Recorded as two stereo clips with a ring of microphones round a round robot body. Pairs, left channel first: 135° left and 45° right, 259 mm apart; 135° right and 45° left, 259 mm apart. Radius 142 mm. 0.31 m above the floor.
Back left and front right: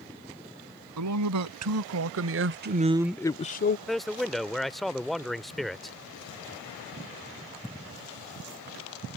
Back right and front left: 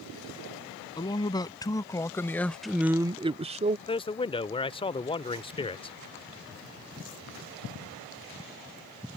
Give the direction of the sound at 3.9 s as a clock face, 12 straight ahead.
5 o'clock.